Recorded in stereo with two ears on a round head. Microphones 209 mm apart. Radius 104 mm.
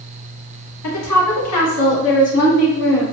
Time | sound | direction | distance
0.8 | a woman speaking | 80° left | 1.2 m